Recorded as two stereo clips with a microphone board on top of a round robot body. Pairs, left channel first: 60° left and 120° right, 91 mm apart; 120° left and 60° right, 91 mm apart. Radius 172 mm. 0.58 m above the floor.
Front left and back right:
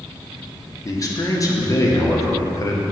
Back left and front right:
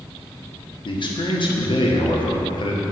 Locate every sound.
0.8 s a man speaking: 105° left, 1.6 m